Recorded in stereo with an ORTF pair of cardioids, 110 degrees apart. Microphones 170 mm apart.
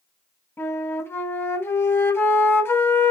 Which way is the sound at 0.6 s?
10° left.